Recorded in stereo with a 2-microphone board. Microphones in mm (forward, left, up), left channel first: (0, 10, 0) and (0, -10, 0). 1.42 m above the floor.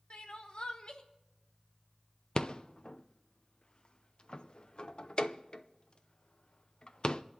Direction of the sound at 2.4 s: 50° left (ahead or behind).